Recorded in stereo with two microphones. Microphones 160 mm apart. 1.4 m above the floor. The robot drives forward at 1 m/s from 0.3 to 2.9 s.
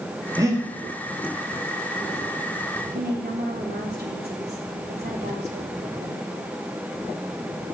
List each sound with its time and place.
0.4 s breathing: 20° right (ahead or behind), 2.5 m
2.9 s a woman speaking: 90° right, 3.5 m